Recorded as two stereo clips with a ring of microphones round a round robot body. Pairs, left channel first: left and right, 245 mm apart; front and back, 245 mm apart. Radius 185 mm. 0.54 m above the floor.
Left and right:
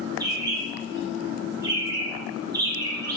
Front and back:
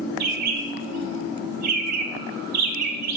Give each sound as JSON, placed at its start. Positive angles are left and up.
{"t": 0.2, "sound": "a bird", "azimuth_deg": -170, "distance_m": 0.6}